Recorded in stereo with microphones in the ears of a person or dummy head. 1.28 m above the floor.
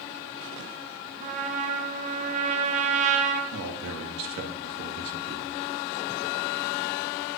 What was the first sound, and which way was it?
A trumpet, 35° right (ahead or behind).